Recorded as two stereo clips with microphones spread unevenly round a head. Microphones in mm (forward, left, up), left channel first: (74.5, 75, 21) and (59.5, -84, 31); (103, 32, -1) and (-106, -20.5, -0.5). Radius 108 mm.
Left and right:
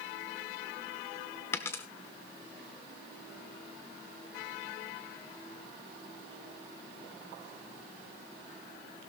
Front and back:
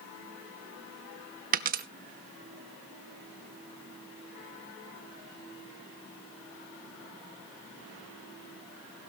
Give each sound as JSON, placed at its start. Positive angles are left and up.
{"t": 1.5, "sound": "a dropped coin", "azimuth_deg": 165, "distance_m": 0.7}